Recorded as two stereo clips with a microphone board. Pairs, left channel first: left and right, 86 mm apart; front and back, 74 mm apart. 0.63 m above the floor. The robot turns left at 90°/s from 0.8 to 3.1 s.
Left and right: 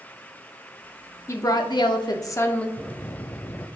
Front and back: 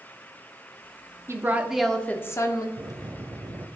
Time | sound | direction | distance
1.3 | a woman speaking | 140° left | 0.9 m
2.8 | a bell | 175° left | 0.6 m